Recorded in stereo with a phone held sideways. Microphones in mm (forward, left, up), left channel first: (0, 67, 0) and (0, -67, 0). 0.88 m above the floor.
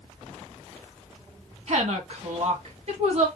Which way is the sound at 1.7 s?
55° right (ahead or behind).